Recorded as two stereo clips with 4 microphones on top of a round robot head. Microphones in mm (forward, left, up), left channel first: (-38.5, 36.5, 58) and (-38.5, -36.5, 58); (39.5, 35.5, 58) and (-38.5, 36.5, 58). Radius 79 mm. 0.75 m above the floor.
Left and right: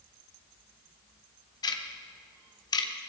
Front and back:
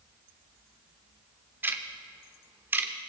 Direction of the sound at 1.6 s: 115° left.